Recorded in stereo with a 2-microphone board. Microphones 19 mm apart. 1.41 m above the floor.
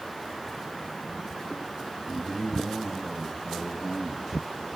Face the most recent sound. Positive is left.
turn(degrees=-5)  # may be behind; listen again after turning